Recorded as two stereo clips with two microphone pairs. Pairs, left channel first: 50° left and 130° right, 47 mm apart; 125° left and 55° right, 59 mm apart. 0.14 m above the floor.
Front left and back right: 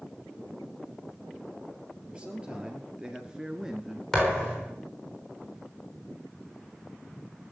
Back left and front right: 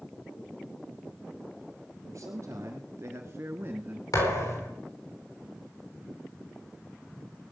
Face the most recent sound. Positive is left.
turn(degrees=135)